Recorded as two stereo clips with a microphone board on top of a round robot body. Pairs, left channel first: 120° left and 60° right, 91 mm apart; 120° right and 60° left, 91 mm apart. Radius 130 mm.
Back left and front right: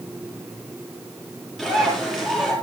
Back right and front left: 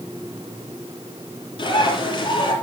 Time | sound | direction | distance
1.6 | a bird | 155° right | 7.5 m